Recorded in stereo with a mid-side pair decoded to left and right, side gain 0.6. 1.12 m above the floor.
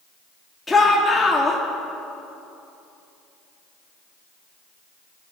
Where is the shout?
15° left, 2 m.